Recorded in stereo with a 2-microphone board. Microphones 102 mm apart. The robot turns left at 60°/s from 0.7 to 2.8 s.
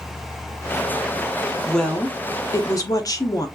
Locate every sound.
1.7 s a woman speaking: straight behind, 0.6 m; by 3.5 s 110° left, 0.6 m